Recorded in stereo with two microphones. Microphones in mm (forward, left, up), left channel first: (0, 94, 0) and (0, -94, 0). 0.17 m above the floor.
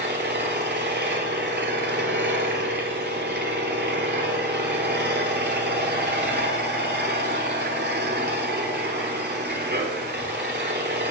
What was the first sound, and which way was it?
An engine running, 65° right (ahead or behind).